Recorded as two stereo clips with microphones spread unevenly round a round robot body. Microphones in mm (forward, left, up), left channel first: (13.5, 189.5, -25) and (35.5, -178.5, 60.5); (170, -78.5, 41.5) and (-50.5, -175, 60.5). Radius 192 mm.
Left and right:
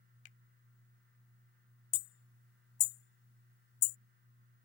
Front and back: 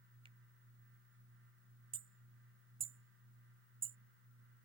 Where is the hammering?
135° left.